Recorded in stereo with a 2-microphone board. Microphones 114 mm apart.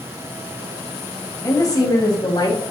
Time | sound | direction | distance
1.4 | a woman speaking | 30° left (ahead or behind) | 1.1 m